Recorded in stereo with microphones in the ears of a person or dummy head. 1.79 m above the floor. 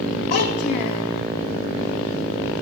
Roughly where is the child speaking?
Left.